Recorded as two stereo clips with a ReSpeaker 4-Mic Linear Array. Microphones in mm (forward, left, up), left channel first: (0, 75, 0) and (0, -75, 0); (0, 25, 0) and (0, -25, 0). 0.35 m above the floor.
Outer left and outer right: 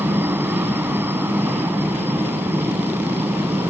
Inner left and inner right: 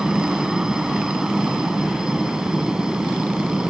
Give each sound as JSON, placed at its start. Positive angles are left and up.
{"t": 0.0, "sound": "a helicopter", "side_deg": -15}